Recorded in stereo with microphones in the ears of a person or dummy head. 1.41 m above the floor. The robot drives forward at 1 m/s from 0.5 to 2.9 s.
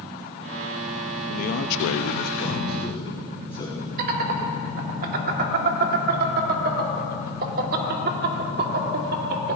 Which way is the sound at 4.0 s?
50° right (ahead or behind).